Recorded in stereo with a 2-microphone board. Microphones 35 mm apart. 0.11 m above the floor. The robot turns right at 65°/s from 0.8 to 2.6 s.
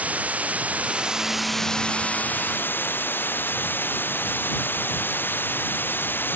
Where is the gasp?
I don't hear a gasp.